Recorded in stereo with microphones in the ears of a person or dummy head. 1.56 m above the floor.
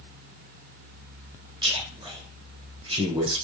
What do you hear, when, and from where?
1.6 s a man speaking: 20° right (ahead or behind), 0.8 m